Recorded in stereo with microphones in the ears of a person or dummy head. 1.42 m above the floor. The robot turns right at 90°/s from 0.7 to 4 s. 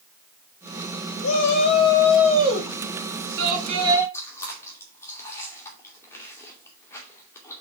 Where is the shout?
100° left, 3 m; by 4.0 s 10° right, 3 m.